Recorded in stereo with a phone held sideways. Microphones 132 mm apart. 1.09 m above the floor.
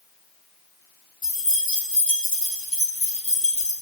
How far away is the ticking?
No ticking in this recording.